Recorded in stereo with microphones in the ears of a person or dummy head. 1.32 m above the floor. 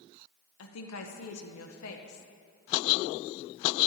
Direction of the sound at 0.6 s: 75° left (ahead or behind).